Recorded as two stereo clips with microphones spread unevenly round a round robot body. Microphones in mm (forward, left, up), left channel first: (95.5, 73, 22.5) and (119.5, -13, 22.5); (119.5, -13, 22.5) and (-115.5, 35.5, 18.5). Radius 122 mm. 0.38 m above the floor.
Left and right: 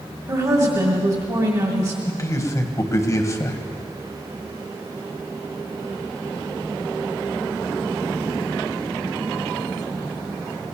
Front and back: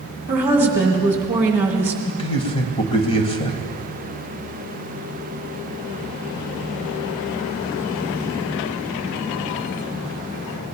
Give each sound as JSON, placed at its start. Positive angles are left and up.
{"t": 0.3, "sound": "a woman speaking", "azimuth_deg": -115, "distance_m": 1.9}
{"t": 2.1, "sound": "a man speaking", "azimuth_deg": 55, "distance_m": 1.9}